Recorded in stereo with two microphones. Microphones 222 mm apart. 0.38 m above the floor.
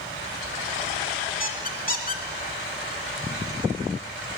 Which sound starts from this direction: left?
A squeak, at 1.4 s.